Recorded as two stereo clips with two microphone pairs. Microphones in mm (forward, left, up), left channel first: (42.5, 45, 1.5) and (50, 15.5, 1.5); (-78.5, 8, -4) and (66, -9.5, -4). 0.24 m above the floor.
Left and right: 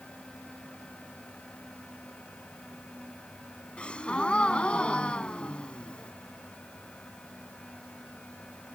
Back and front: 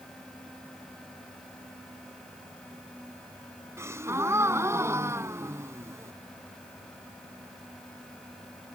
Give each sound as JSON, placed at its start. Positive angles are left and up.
{"t": 3.8, "sound": "a gasp", "azimuth_deg": 60}